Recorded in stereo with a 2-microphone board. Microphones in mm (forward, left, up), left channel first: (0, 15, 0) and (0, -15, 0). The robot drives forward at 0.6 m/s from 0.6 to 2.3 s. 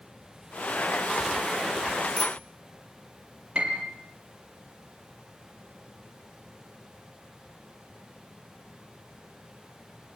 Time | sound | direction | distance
2.2 | a bicycle bell | 25° left (ahead or behind) | 2 m
3.5 | a piano | 35° right (ahead or behind) | 4.5 m